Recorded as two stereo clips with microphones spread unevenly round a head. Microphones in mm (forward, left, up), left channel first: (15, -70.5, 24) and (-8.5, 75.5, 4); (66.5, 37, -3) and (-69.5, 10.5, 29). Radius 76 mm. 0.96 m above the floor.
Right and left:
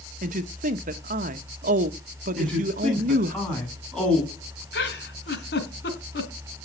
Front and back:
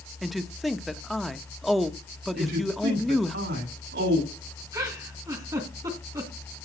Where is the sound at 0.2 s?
95° left, 1.4 m.